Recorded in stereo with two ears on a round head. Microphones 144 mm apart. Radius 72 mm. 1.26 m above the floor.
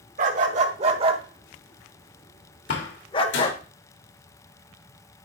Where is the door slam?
80° left, 2.5 m.